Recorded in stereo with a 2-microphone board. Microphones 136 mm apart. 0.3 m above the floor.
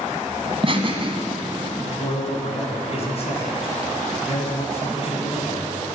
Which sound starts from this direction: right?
Laughter, at 0.5 s.